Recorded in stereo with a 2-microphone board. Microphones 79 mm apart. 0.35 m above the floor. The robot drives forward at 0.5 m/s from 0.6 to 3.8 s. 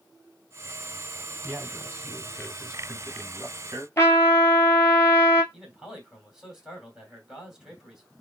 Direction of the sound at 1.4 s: 25° right (ahead or behind).